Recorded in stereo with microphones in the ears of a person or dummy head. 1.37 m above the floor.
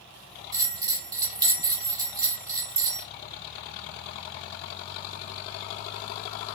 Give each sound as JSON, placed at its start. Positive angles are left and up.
{"t": 0.5, "sound": "a bell", "side_deg": -25, "distance_m": 3.5}